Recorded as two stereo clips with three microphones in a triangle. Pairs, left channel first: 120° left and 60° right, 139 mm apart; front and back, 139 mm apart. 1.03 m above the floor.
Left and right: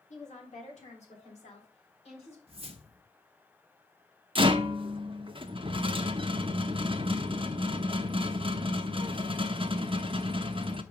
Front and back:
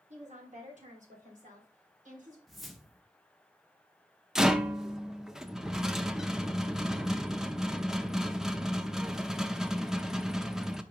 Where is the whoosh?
90° right, 0.8 m.